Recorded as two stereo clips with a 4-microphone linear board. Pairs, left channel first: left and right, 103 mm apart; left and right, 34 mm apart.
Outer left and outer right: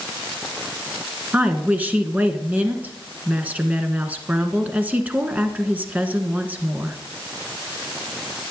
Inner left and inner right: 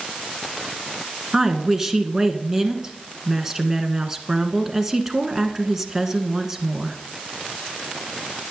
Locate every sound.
1.3 s a woman speaking: 15° right (ahead or behind), 1.3 m